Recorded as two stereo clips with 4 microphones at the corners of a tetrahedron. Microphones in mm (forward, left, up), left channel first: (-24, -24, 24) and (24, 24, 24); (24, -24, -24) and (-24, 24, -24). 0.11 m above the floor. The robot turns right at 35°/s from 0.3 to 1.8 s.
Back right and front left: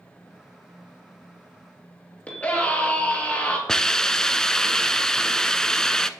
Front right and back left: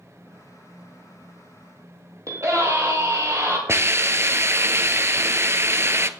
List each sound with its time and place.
2.3 s a scream: 160° left, 3 m
3.7 s a hiss: 150° left, 0.6 m